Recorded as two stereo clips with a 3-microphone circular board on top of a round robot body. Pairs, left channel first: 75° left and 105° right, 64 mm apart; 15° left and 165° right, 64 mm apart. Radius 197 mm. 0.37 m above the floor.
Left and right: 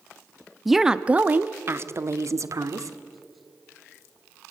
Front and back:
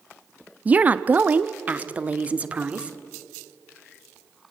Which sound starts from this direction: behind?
A woman speaking, at 0.7 s.